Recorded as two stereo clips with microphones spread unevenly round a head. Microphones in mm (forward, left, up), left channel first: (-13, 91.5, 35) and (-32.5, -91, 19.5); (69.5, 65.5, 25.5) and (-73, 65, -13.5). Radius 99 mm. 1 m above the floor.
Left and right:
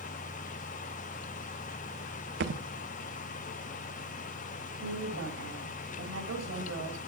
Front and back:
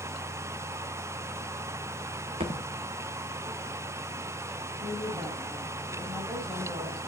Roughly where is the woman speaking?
Right.